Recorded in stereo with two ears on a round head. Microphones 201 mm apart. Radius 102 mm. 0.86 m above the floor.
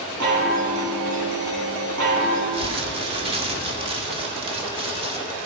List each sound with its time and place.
0.2 s a chime: 85° right, 6 m
2.5 s crumpling: 25° right (ahead or behind), 2 m